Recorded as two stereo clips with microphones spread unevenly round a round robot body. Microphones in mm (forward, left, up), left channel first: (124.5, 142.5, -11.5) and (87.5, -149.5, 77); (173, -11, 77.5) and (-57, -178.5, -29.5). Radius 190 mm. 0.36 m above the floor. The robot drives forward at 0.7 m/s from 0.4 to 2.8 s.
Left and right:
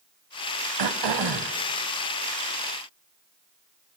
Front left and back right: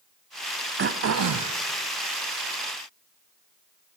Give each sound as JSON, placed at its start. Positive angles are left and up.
{"t": 0.8, "sound": "throat clearing", "azimuth_deg": -85, "distance_m": 0.8}